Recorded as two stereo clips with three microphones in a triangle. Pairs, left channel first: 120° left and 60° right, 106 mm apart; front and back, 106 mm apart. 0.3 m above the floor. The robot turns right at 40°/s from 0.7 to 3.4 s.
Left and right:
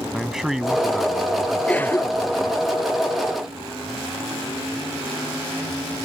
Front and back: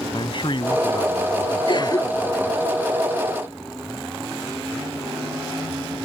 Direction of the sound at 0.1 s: 25° left.